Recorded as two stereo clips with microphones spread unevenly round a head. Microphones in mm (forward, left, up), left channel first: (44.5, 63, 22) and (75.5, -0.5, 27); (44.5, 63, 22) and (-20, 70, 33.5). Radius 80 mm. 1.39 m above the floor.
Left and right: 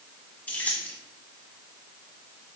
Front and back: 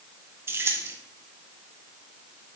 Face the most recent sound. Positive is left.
turn(degrees=-165)